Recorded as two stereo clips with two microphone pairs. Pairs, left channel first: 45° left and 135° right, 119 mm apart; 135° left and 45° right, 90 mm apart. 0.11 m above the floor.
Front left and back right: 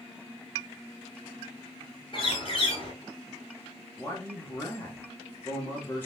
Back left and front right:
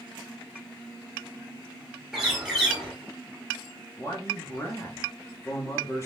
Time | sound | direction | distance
2.1 | a bird | 40° left | 1.6 m
4.0 | a man speaking | 105° left | 1.3 m